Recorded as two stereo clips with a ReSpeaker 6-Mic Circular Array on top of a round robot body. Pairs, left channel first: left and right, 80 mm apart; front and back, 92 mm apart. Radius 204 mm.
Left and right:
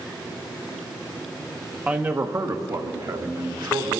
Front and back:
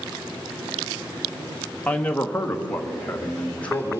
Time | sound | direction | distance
1.9 | a man speaking | 45° right | 1.1 m